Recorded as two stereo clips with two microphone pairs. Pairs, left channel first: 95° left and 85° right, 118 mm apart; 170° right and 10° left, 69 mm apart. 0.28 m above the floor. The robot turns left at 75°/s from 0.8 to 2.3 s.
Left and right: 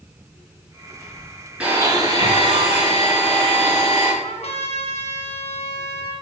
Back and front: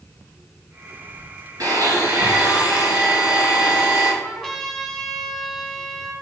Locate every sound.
1.6 s a blender: 5° right, 4 m; by 4.1 s 60° right, 4 m
4.2 s a trumpet: 95° left, 2 m